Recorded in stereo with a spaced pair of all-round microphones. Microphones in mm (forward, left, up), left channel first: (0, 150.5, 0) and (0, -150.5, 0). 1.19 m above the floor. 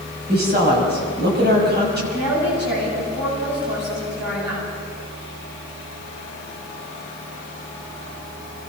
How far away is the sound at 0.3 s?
About 6.5 m.